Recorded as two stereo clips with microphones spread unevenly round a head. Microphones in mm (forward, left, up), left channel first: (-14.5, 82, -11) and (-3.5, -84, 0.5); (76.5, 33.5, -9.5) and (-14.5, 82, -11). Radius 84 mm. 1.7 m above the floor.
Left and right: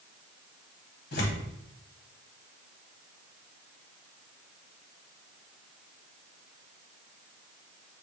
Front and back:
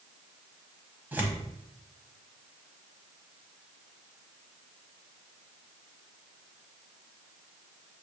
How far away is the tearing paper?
About 1.2 m.